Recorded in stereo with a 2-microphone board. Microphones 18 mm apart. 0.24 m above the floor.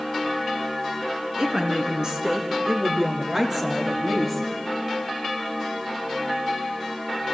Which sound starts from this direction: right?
A woman speaking, at 1.4 s.